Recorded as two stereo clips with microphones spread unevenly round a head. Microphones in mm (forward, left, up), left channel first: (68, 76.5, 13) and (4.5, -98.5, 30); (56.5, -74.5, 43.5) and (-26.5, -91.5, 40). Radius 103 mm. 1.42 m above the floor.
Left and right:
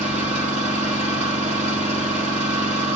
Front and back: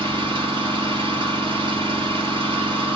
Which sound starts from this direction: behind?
An engine running, at 0.0 s.